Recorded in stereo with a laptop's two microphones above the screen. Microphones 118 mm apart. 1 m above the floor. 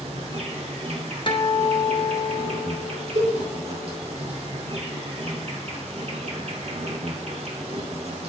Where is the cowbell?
70° right (ahead or behind), 3.5 m.